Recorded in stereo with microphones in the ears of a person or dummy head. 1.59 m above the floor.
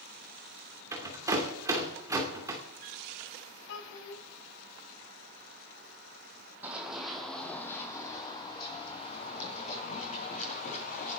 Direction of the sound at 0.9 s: 20° right (ahead or behind).